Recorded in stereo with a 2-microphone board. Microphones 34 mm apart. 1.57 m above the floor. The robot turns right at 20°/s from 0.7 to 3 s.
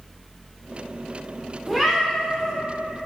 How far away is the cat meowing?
About 1.4 m.